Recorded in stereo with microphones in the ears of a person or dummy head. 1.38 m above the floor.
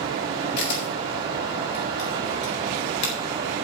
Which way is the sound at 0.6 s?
65° left (ahead or behind).